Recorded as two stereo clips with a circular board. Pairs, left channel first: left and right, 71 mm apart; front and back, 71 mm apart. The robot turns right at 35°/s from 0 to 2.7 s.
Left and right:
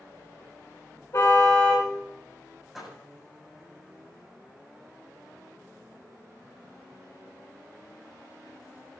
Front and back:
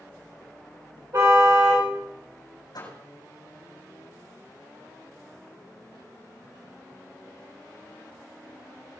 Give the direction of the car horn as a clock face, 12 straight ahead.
8 o'clock.